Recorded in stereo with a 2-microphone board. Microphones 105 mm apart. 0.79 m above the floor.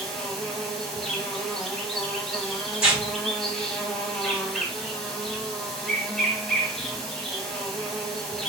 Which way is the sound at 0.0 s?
5° left (ahead or behind).